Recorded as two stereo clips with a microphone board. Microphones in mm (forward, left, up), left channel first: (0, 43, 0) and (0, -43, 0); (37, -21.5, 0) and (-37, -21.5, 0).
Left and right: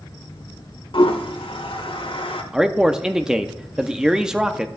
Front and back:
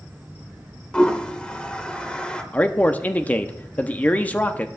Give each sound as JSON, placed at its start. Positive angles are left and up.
{"t": 0.9, "sound": "a toilet flushing", "azimuth_deg": 75, "distance_m": 0.9}
{"t": 2.5, "sound": "a man speaking", "azimuth_deg": -20, "distance_m": 0.5}